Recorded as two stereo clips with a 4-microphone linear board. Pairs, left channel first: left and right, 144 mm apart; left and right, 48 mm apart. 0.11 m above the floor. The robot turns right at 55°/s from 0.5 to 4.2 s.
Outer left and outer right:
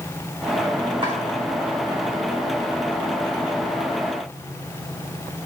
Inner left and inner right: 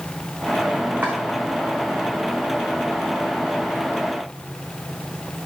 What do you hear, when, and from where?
1.0 s chopping: 35° right (ahead or behind), 1.5 m; by 1.2 s 25° right (ahead or behind), 1.5 m